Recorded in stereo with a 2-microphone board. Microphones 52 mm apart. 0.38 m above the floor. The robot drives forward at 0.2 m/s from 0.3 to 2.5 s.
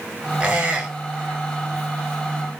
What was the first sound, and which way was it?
A squeak, 30° right (ahead or behind).